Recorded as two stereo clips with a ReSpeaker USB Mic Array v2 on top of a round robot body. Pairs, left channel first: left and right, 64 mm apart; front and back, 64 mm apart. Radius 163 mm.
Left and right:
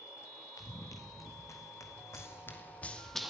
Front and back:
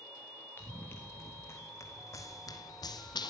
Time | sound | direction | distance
0.6 | running footsteps | 55° left | 3.5 m